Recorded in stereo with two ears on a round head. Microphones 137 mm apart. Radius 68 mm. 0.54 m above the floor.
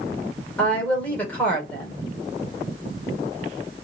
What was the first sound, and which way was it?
A woman speaking, 10° left (ahead or behind).